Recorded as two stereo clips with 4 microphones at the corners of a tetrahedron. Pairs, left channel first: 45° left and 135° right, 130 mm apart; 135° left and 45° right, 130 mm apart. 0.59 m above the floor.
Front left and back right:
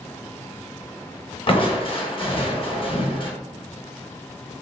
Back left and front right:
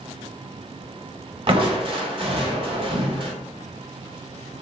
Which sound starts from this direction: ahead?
Crushing, at 1.5 s.